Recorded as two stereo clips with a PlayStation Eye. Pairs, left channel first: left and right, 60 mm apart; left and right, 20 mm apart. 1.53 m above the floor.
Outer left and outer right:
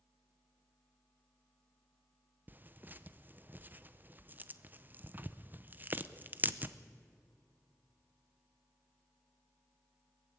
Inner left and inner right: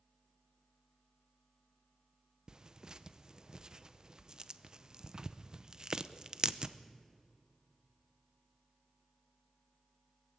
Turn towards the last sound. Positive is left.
turn(degrees=-30)  # may be behind; listen again after turning